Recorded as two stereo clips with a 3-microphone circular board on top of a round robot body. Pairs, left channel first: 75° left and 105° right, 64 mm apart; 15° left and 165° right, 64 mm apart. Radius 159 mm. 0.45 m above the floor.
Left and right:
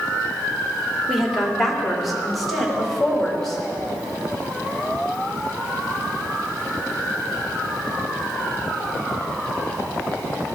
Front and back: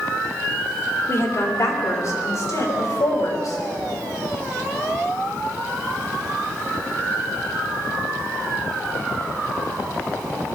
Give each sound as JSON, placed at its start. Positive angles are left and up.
{"t": 1.1, "sound": "a woman speaking", "azimuth_deg": -20, "distance_m": 2.5}